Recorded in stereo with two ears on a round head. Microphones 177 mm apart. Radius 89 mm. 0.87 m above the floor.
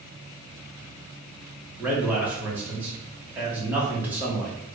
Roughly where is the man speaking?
Centre.